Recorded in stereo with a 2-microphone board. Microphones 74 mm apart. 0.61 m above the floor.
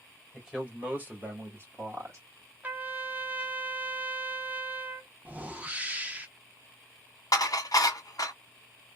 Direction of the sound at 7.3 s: 55° left (ahead or behind).